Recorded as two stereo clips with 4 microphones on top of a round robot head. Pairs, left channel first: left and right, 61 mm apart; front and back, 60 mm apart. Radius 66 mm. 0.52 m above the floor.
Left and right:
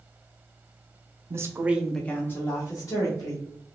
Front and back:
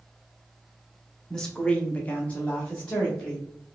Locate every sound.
1.3 s a woman speaking: 80° right, 1.0 m; by 3.5 s 75° left, 2 m